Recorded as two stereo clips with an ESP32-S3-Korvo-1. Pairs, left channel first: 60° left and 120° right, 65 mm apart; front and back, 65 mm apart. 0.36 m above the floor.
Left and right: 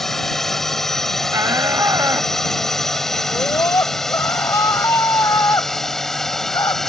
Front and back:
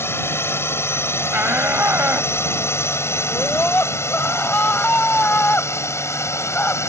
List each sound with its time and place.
0.0 s a drone: 20° right
1.3 s a shout: 125° right
3.3 s a scream: 60° left